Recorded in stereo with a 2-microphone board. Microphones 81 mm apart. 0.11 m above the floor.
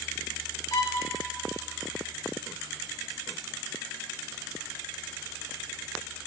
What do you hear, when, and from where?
0.7 s a violin: 45° left (ahead or behind), 1.1 m